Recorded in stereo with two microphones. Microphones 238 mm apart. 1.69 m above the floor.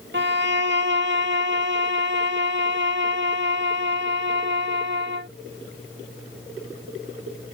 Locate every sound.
0.1 s a violin: 55° right (ahead or behind)